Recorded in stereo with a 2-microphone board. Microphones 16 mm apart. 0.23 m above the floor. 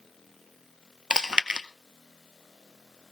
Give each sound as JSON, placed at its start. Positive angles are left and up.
{"t": 1.1, "sound": "chewing", "side_deg": -65, "distance_m": 0.8}